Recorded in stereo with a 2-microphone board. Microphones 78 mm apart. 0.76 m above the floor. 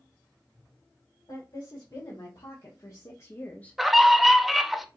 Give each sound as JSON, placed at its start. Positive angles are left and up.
{"t": 1.3, "sound": "a woman speaking", "side_deg": 50, "distance_m": 2.5}
{"t": 3.8, "sound": "a scream", "side_deg": 0, "distance_m": 0.7}